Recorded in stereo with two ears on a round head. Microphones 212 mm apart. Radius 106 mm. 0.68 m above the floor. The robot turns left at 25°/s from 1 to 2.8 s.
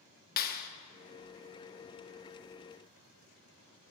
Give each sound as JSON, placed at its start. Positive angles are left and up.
{"t": 0.4, "sound": "a clap", "side_deg": 40, "distance_m": 0.8}